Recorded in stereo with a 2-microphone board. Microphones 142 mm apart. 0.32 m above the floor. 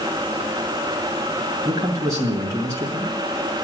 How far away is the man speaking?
About 2 m.